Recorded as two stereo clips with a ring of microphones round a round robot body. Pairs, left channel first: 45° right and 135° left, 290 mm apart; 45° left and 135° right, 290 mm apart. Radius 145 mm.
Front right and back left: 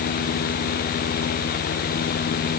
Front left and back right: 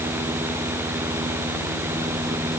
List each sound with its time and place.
Only background noise.